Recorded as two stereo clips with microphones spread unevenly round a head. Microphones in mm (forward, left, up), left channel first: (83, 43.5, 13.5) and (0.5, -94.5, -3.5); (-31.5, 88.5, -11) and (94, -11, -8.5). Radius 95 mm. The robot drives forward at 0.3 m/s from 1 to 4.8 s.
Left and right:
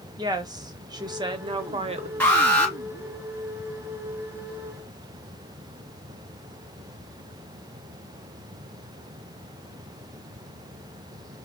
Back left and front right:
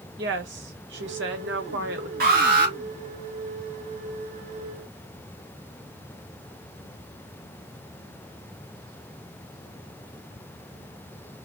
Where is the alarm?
20° right, 3 m.